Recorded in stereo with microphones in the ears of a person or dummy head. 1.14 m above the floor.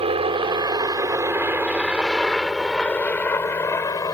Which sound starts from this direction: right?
A helicopter, at 0.0 s.